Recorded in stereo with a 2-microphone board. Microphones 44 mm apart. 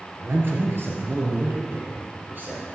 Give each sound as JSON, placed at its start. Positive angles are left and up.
{"t": 0.2, "sound": "a man speaking", "side_deg": -55, "distance_m": 2.5}